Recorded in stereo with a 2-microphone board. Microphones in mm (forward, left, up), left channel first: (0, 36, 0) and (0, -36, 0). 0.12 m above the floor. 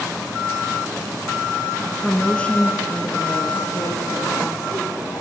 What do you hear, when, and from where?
2.0 s a woman speaking: centre (ahead or behind), 1.4 m; by 5.2 s 60° left (ahead or behind), 4.5 m